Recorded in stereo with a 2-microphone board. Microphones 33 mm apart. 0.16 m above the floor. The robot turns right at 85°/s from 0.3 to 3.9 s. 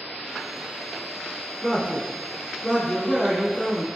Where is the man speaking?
10° right (ahead or behind), 1.6 m; by 3.9 s 10° left (ahead or behind), 1.6 m.